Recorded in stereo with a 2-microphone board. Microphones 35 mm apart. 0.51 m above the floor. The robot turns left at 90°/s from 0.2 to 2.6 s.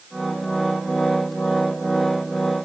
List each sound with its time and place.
Only background noise.